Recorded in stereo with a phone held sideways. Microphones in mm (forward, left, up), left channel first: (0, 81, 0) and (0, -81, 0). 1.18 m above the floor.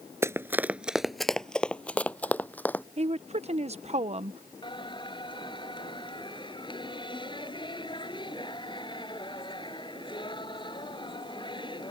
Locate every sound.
0.2 s running footsteps: 15° right (ahead or behind); by 2.8 s 10° left (ahead or behind)
3.0 s a woman speaking: 40° right (ahead or behind)
4.6 s singing: 30° left (ahead or behind)